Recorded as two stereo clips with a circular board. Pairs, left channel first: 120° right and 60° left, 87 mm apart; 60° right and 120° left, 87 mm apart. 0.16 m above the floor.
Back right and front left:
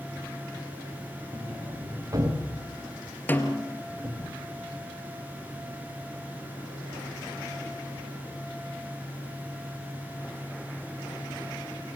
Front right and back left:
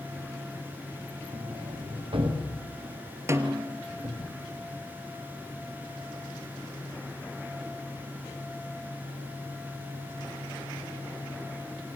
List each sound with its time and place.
1.3 s a sliding door: 110° left, 7 m
3.3 s a snare drum: 175° left, 2.5 m